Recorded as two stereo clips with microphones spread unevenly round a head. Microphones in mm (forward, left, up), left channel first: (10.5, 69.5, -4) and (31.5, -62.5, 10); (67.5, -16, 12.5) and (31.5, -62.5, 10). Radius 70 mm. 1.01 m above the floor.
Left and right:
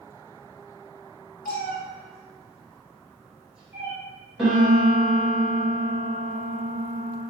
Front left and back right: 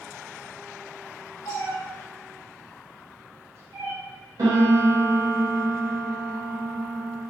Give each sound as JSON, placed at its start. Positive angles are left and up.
{"t": 1.4, "sound": "a cat meowing", "azimuth_deg": 105, "distance_m": 1.8}
{"t": 4.4, "sound": "a piano", "azimuth_deg": -170, "distance_m": 1.4}